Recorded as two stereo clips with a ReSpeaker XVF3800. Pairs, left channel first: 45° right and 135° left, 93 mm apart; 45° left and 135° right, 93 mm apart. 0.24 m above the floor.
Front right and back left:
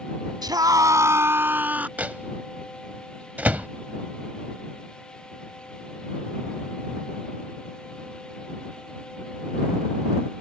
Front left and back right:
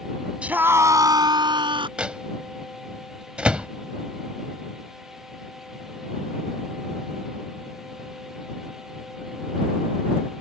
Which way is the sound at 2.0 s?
170° left.